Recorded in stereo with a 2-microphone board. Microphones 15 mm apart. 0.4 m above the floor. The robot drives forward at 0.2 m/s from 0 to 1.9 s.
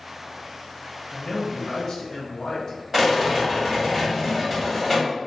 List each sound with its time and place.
1.1 s a man speaking: 30° left (ahead or behind), 0.9 m
2.9 s a rattle: 20° right (ahead or behind), 1.6 m